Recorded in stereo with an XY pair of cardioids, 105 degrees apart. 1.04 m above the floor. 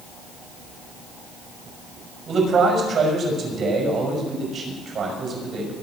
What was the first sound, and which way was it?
A man speaking, 50° right.